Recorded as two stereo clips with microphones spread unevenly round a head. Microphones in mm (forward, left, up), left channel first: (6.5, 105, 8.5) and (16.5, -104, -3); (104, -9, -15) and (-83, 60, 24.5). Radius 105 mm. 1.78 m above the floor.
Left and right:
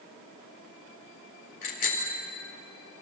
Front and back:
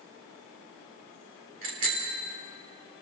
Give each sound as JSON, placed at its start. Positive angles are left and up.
{"t": 1.6, "sound": "a bicycle bell", "azimuth_deg": 145, "distance_m": 4.0}